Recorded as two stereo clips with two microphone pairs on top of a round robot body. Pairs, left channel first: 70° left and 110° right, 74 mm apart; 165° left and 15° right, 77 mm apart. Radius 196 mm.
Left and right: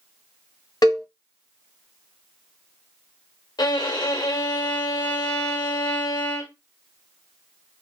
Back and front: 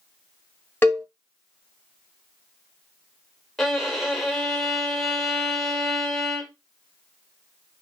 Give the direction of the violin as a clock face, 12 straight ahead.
9 o'clock.